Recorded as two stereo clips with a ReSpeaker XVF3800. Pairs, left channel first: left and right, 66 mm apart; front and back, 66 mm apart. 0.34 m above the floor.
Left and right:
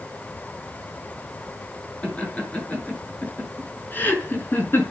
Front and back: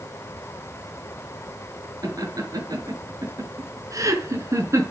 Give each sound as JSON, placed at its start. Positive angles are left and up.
{"t": 2.0, "sound": "laughter", "azimuth_deg": 160, "distance_m": 5.5}